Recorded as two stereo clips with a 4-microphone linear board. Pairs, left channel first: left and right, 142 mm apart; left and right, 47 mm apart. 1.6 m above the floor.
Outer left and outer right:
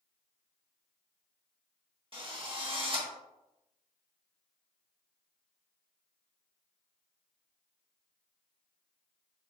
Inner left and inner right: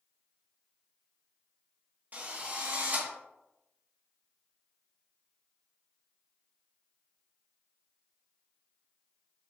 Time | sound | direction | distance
2.1 | a drill | 40° right (ahead or behind) | 1.8 m